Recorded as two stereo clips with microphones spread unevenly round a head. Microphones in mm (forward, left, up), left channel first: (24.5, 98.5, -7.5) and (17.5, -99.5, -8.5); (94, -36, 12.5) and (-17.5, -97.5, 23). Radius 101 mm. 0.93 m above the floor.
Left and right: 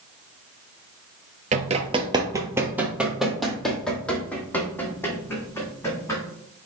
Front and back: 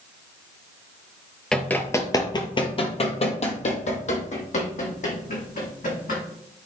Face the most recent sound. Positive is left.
turn(degrees=15)